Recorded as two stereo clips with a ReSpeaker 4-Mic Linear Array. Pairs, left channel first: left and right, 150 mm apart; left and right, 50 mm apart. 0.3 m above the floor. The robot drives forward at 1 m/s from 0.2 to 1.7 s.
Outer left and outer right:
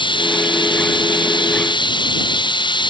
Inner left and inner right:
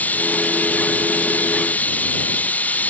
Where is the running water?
35° left (ahead or behind); by 2.9 s 30° left (ahead or behind).